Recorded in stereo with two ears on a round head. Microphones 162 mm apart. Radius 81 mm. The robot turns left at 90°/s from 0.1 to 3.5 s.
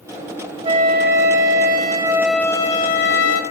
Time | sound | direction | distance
0.6 | a flute | 30° right | 0.9 m